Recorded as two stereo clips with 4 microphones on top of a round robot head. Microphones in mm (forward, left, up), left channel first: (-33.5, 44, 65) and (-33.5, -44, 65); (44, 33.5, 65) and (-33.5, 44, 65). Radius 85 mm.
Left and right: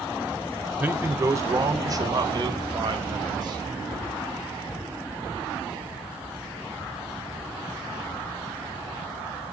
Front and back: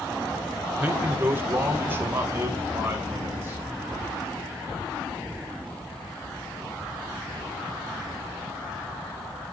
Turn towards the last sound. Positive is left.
turn(degrees=-125)